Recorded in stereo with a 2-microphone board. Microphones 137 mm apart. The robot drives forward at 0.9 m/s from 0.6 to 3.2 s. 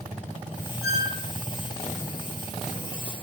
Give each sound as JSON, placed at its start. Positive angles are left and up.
{"t": 0.8, "sound": "a squeak", "side_deg": -25, "distance_m": 3.5}